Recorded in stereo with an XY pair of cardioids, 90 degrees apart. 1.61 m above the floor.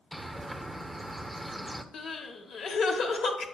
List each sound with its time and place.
0.1 s a bird: 10° right, 0.7 m
1.9 s crying: 70° left, 1.0 m